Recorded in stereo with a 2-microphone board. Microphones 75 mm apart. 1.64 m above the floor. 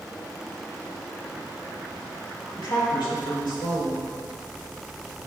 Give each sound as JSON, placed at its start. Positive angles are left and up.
{"t": 2.5, "sound": "a woman speaking", "side_deg": 75, "distance_m": 3.0}